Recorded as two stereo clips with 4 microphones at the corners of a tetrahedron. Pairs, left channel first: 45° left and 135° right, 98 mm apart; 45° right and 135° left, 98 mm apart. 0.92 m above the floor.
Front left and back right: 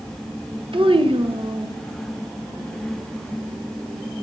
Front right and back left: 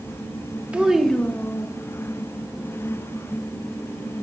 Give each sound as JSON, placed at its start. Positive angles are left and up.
{"t": 0.7, "sound": "a child speaking", "azimuth_deg": -150, "distance_m": 0.6}